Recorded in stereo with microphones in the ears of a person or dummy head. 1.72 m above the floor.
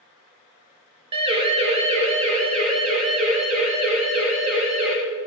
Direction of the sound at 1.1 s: 30° right (ahead or behind).